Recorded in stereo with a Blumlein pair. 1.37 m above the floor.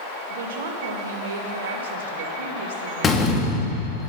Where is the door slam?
20° left, 1.5 m.